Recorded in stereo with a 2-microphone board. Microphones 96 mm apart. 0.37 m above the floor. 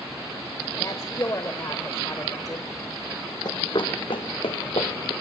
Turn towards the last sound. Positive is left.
turn(degrees=75)  # may be behind; listen again after turning